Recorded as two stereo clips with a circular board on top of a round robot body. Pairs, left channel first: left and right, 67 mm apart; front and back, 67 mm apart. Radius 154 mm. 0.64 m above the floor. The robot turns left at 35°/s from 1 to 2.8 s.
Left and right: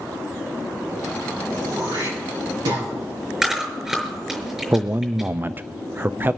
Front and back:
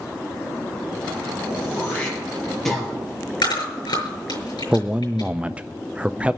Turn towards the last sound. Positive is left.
turn(degrees=-120)